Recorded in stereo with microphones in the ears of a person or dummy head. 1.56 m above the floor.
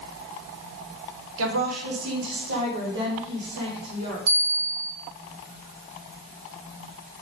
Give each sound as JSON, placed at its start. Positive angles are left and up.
{"t": 1.4, "sound": "a woman speaking", "side_deg": -80, "distance_m": 1.6}
{"t": 4.3, "sound": "a bell", "side_deg": -30, "distance_m": 0.8}